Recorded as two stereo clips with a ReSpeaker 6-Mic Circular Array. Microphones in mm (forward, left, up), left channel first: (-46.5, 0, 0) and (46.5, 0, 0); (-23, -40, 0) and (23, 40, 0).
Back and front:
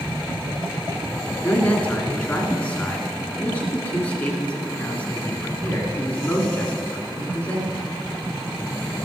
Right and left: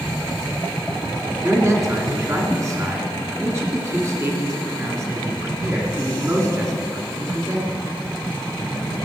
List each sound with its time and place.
1.4 s a man speaking: 110° left, 2.5 m